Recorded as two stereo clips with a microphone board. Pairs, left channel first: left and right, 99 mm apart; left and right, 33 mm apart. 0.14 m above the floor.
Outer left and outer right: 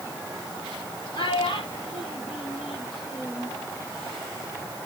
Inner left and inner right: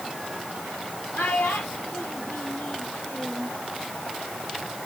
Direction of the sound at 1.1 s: 60° left (ahead or behind).